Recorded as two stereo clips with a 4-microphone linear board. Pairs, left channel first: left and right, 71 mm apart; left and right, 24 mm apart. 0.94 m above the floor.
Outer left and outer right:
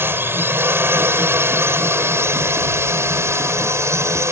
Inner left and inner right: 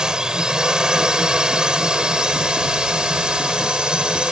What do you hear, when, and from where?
0.0 s a drone: 30° right (ahead or behind); by 4.3 s 40° right (ahead or behind)